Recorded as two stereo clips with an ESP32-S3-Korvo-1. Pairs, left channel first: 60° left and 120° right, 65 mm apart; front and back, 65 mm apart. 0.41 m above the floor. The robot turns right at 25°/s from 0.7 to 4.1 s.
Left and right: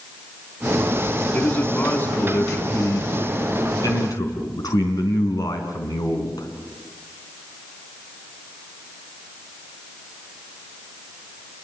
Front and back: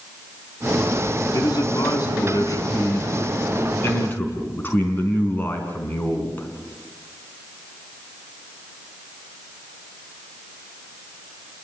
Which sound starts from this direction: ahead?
A man speaking, at 1.3 s.